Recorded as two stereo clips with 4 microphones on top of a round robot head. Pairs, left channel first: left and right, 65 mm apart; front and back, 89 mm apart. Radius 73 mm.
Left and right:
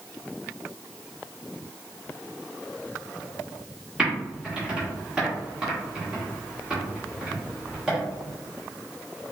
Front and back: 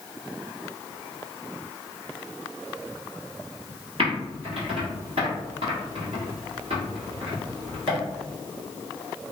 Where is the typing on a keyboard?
165° right, 1.4 m.